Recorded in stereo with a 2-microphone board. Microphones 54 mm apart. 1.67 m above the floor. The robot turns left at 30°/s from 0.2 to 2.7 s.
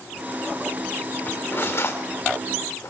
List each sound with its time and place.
1.3 s cutlery clinking: 35° left (ahead or behind), 3.5 m; by 2.9 s 75° left (ahead or behind), 3.5 m